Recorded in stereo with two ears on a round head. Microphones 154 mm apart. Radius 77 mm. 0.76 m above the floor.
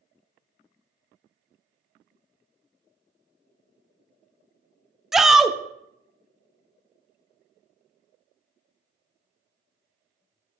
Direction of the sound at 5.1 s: Centre (ahead or behind).